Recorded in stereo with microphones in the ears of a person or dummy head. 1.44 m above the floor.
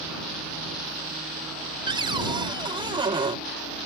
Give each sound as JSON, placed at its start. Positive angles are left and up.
{"t": 1.9, "sound": "a cupboard door", "side_deg": -30}